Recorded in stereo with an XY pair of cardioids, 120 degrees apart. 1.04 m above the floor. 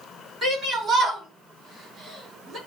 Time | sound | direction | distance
0.4 | a shout | 35° right | 3.5 m